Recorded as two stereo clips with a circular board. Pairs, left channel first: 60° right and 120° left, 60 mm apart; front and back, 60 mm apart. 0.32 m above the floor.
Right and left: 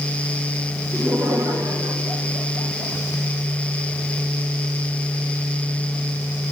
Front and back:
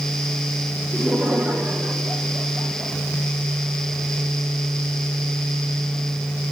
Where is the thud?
No thud in this recording.